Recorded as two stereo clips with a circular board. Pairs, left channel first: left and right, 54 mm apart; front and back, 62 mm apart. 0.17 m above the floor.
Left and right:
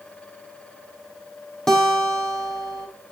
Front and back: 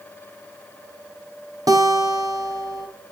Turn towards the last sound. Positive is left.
turn(degrees=170)